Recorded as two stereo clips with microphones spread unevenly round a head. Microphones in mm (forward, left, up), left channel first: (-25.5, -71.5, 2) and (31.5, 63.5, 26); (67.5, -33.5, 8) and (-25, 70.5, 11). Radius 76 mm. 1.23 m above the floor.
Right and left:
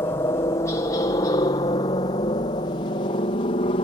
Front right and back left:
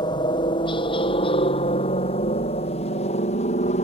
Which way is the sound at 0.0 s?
70° right.